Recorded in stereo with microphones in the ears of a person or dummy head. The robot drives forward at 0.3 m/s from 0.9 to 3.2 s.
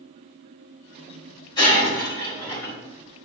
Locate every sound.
1.6 s breaking glass: 25° left (ahead or behind), 2.5 m; by 2.8 s 20° left (ahead or behind), 2.5 m